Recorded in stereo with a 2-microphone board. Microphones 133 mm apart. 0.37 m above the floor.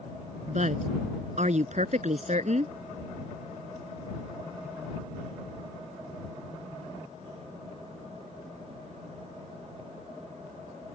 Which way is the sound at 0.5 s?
60° right (ahead or behind).